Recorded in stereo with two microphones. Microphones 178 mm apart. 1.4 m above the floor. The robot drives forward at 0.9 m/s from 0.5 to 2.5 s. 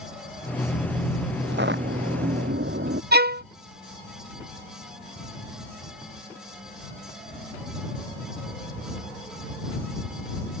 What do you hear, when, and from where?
1.4 s footsteps: 80° right; by 3.0 s 85° right
3.1 s a violin: 60° right (ahead or behind)